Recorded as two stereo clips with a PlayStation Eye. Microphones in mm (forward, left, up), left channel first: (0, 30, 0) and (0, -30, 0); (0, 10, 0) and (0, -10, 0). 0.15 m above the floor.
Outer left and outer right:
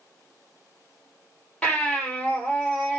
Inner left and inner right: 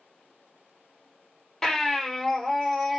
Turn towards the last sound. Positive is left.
turn(degrees=15)  # may be behind; listen again after turning